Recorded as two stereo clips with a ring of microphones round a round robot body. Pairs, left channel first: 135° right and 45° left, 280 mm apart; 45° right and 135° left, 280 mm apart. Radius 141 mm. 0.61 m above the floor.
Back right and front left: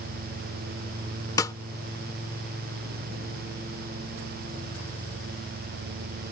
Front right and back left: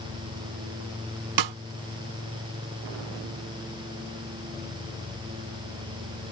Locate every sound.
1.4 s a snare drum: 145° left